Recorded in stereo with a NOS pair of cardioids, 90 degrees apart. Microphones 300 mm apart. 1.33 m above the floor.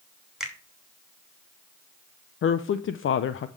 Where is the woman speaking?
45° left, 0.7 m.